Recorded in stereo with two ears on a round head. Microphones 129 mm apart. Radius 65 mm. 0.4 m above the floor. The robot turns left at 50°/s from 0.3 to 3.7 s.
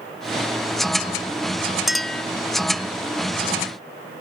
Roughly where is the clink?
Centre.